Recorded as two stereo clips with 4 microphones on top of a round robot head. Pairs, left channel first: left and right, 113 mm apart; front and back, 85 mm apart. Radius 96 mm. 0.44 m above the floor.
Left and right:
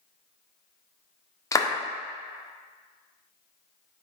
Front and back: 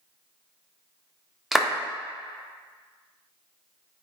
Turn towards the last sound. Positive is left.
turn(degrees=90)